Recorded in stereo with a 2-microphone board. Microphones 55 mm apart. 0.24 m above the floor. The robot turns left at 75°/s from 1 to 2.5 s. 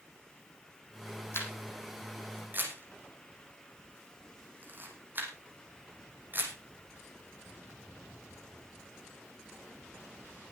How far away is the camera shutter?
About 5 m.